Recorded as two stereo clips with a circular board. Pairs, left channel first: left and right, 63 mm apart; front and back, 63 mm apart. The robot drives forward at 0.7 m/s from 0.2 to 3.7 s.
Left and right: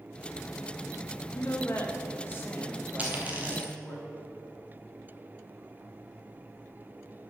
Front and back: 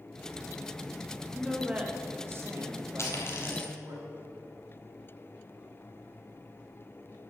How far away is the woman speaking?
About 0.9 m.